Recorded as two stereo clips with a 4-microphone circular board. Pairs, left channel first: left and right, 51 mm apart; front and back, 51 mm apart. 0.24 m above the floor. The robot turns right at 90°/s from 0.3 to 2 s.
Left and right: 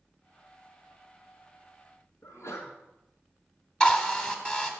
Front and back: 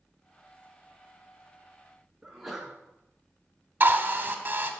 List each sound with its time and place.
2.2 s a sneeze: 95° left, 2 m
3.8 s a drill: 150° left, 1.5 m